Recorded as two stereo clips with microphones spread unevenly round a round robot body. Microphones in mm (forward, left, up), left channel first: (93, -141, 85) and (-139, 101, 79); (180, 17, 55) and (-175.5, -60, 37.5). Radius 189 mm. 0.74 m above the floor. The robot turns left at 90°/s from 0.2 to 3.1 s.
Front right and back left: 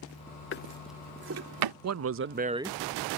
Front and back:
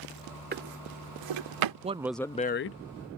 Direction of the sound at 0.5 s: 100° right.